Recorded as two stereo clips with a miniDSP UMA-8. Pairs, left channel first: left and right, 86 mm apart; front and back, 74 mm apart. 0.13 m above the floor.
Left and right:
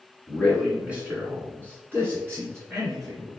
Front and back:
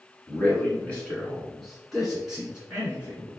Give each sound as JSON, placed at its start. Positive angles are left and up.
{"t": 0.3, "sound": "a man speaking", "azimuth_deg": -10, "distance_m": 1.8}